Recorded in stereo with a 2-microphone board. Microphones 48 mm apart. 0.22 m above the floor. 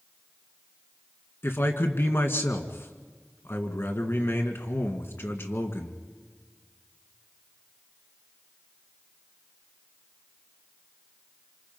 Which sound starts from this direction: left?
A man speaking, at 1.4 s.